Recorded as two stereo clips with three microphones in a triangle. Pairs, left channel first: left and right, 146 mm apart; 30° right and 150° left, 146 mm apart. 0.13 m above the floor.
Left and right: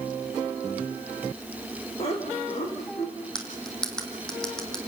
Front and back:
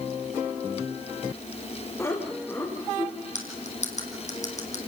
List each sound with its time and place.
2.0 s laughter: 40° left, 7 m; by 3.1 s 50° left, 6.5 m
3.4 s cutlery clinking: 5° left, 3.5 m